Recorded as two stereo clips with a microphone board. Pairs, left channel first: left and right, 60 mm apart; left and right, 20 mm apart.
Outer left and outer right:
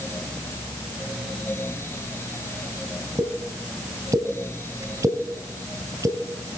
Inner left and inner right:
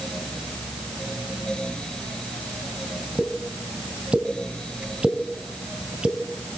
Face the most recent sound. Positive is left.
turn(degrees=-60)  # may be behind; listen again after turning